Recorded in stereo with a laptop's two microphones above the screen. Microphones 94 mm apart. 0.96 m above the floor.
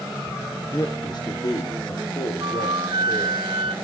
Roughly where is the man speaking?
Left.